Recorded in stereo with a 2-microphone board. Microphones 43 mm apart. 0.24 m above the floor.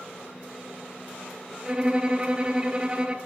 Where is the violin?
25° right (ahead or behind), 1.5 m.